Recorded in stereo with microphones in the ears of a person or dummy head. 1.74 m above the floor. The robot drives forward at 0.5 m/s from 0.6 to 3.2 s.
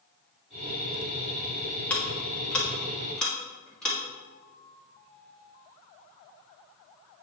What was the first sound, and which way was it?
Ticking, 10° left (ahead or behind).